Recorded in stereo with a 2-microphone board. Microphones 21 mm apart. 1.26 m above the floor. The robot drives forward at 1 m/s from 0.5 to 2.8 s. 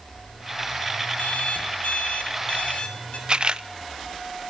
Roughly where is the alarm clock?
Left.